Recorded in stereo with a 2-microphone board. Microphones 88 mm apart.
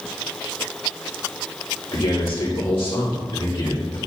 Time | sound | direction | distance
1.9 | a man speaking | 80° left | 2.5 m